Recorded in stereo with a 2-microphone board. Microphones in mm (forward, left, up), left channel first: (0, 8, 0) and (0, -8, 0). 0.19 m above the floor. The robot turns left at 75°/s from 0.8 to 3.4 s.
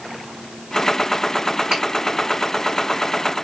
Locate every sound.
1.7 s a finger snap: 50° right (ahead or behind), 1.6 m